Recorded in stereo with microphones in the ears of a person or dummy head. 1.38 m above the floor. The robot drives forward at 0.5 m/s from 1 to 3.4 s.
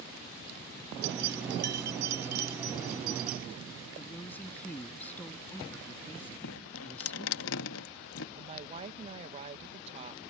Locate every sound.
1.0 s keys jangling: 70° right (ahead or behind); by 3.5 s 50° right (ahead or behind)
4.0 s a woman speaking: 15° left (ahead or behind)
6.4 s dripping: 75° left (ahead or behind)
8.4 s a woman speaking: 30° right (ahead or behind)